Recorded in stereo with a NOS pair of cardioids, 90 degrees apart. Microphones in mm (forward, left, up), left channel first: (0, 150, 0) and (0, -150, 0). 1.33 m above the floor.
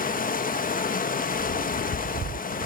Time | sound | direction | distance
0.0 | running water | 30° left | 1.2 m